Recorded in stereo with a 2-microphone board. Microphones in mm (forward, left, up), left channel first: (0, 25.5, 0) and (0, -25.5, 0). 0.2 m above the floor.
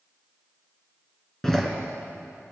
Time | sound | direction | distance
1.4 | a door slam | 10° left (ahead or behind) | 2 m